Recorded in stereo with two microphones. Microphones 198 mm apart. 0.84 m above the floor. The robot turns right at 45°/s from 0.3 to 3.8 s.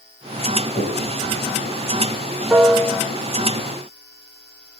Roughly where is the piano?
Centre.